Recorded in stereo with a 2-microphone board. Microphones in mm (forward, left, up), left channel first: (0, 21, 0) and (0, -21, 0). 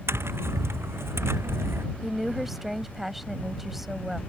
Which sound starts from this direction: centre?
A woman speaking, at 2.0 s.